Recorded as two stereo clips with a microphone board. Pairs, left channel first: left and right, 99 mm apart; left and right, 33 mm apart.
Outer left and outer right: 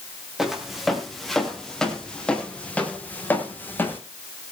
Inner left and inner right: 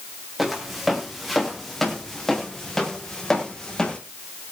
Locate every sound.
0.4 s footsteps: 5° right (ahead or behind), 4.5 m; by 4.0 s 20° left (ahead or behind), 5 m